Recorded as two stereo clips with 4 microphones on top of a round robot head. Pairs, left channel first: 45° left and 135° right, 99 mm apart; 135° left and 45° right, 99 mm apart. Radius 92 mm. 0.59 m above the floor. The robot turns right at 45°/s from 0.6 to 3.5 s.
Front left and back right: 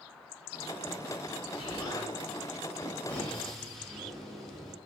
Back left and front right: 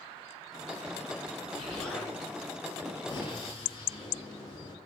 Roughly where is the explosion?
Ahead left.